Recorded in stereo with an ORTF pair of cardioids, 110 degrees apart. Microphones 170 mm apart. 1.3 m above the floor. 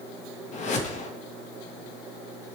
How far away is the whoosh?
About 1.7 m.